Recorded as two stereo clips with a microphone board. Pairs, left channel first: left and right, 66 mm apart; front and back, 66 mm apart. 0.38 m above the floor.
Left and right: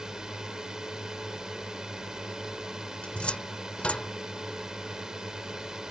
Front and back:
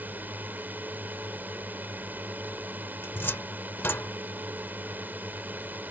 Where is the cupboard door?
30° left.